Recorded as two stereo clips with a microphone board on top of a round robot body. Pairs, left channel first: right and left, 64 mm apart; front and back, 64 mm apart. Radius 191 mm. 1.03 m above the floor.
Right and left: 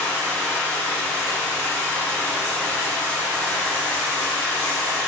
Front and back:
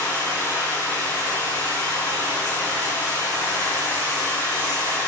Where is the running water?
30° right, 5.5 m.